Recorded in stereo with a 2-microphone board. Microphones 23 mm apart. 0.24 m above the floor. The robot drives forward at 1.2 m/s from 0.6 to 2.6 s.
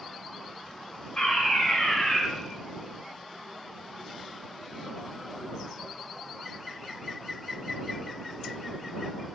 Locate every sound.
1.2 s a fire alarm: 50° left (ahead or behind), 3.5 m; by 2.2 s 40° left (ahead or behind), 4 m